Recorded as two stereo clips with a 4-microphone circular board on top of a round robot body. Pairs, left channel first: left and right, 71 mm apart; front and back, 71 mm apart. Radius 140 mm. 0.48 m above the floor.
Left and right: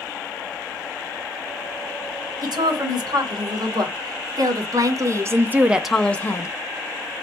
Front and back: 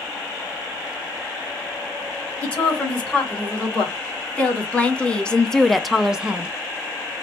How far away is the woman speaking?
About 2.5 m.